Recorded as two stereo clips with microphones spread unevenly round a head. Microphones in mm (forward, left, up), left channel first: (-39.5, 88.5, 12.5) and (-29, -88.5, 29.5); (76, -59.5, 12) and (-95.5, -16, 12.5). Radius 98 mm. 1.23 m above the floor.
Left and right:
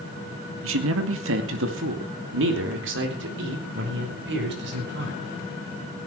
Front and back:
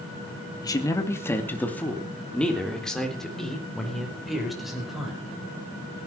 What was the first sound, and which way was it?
A man speaking, 85° right.